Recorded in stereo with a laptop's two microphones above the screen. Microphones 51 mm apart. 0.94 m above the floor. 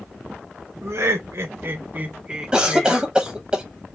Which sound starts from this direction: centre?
A cough, at 2.5 s.